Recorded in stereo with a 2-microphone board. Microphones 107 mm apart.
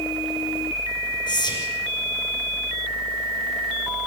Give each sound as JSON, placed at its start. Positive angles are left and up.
{"t": 1.3, "sound": "whispering", "side_deg": 45, "distance_m": 4.0}